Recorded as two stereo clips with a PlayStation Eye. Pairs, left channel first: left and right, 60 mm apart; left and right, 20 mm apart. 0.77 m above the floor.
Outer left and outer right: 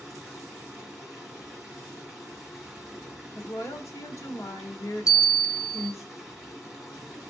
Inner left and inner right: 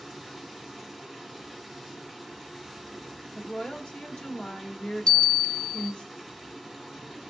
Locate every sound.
0.0 s running water: 10° right (ahead or behind), 3 m
3.4 s a woman speaking: 65° left (ahead or behind), 1.4 m
5.1 s a bell: 65° left (ahead or behind), 0.9 m